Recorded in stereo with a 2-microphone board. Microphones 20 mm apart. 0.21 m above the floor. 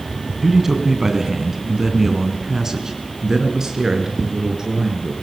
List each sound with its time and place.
0.4 s a man speaking: 20° right (ahead or behind), 2 m; by 5.1 s 30° right (ahead or behind), 4 m